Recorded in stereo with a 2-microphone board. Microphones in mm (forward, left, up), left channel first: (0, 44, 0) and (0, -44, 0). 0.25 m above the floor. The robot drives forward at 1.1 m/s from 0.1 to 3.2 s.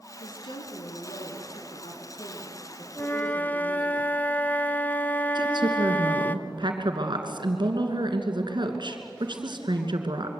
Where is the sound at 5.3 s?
60° right (ahead or behind), 2.5 m.